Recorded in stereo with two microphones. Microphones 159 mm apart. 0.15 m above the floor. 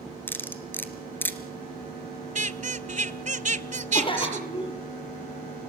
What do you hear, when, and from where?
0.3 s cutlery clinking: 15° left (ahead or behind), 1.7 m
2.4 s a squeak: 50° right (ahead or behind), 0.6 m
3.9 s a cough: 35° left (ahead or behind), 4.5 m